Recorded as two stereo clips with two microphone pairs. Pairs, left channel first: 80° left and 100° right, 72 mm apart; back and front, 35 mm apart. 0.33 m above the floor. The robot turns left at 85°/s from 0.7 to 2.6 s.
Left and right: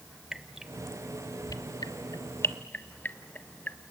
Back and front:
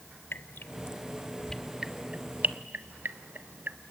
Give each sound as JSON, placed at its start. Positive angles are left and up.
{"t": 0.3, "sound": "dripping", "azimuth_deg": 175, "distance_m": 0.5}